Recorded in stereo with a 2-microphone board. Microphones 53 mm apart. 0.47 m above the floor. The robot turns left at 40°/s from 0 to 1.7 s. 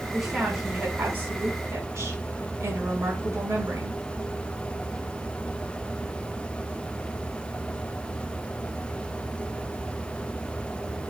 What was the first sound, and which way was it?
A woman speaking, straight ahead.